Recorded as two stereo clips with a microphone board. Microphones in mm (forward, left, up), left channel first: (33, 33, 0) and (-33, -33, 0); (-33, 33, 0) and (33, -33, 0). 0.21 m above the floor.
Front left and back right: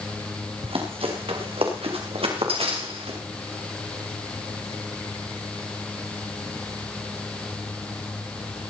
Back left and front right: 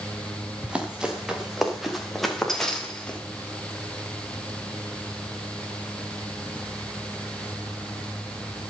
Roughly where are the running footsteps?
Behind right.